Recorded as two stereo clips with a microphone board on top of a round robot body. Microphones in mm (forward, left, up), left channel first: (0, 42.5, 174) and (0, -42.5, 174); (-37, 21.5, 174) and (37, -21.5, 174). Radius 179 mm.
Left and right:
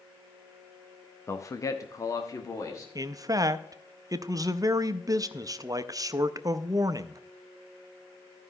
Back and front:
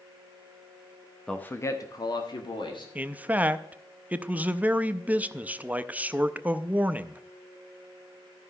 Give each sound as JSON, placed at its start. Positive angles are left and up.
{"t": 1.3, "sound": "a man speaking", "azimuth_deg": 75, "distance_m": 1.0}
{"t": 3.0, "sound": "a man speaking", "azimuth_deg": -95, "distance_m": 0.8}